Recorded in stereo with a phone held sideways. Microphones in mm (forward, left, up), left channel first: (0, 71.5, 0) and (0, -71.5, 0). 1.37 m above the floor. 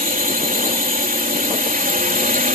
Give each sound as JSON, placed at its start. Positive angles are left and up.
{"t": 0.0, "sound": "a drone", "side_deg": -80}